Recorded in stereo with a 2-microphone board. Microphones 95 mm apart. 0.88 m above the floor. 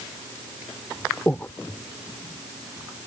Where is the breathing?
20° left (ahead or behind).